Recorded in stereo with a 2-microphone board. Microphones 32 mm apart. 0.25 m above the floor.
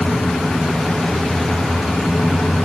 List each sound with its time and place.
Only background noise.